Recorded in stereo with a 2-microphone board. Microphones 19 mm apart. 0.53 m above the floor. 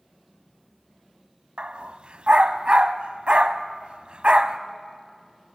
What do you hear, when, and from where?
1.6 s a dog barking: 60° right (ahead or behind), 0.8 m